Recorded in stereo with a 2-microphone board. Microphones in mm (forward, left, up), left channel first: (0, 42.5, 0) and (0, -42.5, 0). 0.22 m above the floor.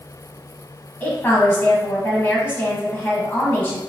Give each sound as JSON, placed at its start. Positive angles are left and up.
{"t": 1.0, "sound": "a woman speaking", "side_deg": 25, "distance_m": 1.1}